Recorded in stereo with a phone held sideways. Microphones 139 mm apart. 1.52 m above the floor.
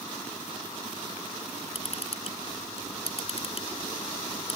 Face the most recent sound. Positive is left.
turn(degrees=45)  # may be behind; listen again after turning